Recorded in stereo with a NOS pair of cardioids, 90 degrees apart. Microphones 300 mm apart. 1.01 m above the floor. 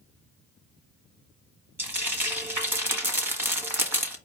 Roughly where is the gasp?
I don't hear a gasp.